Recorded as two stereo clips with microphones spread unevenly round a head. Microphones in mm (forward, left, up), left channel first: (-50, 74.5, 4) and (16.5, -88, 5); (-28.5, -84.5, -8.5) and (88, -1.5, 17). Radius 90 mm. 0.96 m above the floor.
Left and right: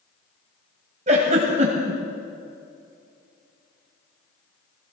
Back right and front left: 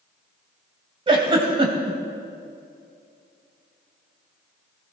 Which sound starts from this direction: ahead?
A giggle, at 1.1 s.